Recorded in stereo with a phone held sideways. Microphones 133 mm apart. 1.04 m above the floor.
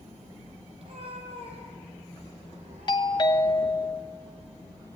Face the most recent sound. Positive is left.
turn(degrees=35)  # may be behind; listen again after turning